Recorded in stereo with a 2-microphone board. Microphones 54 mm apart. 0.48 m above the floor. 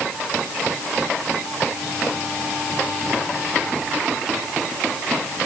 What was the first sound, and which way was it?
Only background noise.